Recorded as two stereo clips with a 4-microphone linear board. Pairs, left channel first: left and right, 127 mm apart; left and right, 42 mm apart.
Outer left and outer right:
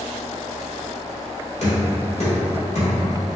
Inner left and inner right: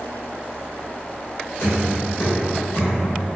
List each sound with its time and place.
1.6 s knocking: 65° left (ahead or behind), 1.9 m